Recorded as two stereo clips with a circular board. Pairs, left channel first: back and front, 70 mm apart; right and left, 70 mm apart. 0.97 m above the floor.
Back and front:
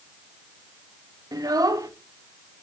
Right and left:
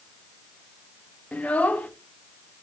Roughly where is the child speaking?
Ahead.